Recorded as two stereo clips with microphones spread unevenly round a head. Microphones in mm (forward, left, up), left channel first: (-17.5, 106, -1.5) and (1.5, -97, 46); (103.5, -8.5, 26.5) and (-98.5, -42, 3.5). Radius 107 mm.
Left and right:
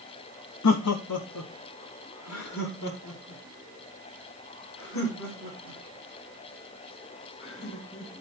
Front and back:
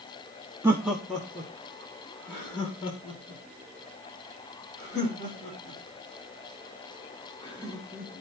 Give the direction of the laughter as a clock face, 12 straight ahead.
8 o'clock.